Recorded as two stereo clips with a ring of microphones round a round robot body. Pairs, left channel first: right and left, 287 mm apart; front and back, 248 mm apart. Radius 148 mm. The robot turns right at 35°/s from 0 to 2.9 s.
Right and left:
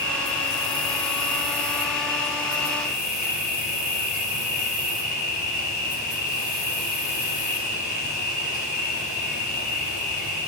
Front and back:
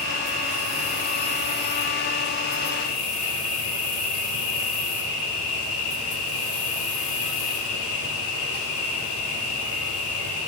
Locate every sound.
0.0 s an insect: 130° right, 7.5 m; by 10.5 s 25° right, 7.5 m